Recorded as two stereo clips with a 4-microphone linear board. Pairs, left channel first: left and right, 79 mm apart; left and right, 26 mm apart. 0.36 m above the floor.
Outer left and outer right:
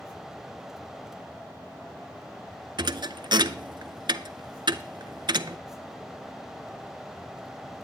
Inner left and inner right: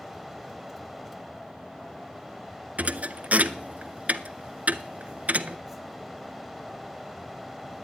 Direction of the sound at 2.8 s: 65° right (ahead or behind).